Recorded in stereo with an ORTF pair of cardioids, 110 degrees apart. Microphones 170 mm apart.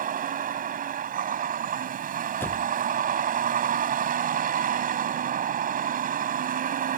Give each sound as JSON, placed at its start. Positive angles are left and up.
{"t": 0.0, "sound": "a vehicle", "azimuth_deg": -50}
{"t": 2.4, "sound": "a door slam", "azimuth_deg": 10}